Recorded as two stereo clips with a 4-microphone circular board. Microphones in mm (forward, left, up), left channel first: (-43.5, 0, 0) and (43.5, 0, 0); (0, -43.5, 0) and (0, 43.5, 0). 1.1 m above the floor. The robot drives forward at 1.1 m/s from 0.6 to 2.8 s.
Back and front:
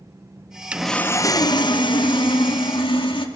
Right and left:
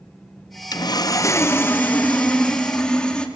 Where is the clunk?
I don't hear a clunk.